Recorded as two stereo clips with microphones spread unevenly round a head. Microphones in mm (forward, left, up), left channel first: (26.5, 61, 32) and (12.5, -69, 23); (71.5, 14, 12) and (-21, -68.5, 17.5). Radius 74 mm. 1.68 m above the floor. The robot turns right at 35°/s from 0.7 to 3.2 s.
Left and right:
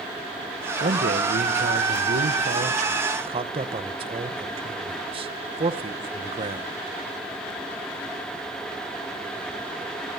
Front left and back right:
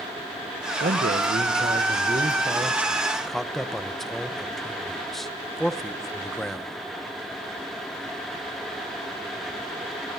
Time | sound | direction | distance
0.8 | a man speaking | 130° right | 1.3 m